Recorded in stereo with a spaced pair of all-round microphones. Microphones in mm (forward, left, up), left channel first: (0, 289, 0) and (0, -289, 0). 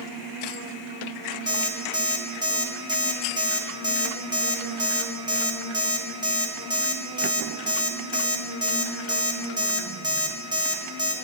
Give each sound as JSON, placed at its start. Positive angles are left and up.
{"t": 1.5, "sound": "an alarm clock", "side_deg": -10, "distance_m": 0.9}